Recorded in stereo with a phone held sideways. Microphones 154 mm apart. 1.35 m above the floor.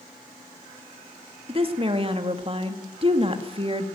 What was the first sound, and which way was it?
A woman speaking, 35° right (ahead or behind).